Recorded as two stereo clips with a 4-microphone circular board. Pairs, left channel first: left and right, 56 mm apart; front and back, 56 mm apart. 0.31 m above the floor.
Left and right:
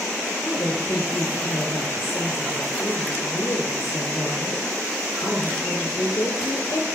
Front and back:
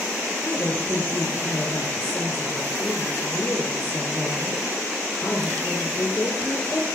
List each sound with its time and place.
0.4 s a woman speaking: 60° left, 6 m